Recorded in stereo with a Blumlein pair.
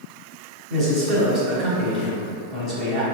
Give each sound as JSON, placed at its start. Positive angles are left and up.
{"t": 0.7, "sound": "a man speaking", "azimuth_deg": -30, "distance_m": 1.2}